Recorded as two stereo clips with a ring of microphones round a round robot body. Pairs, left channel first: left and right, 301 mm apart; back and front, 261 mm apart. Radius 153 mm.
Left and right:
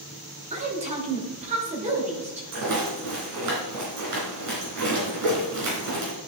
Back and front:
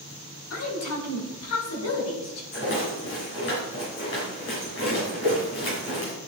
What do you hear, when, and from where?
0.5 s a woman speaking: 155° right, 1.8 m
2.5 s a rattle: 125° right, 3 m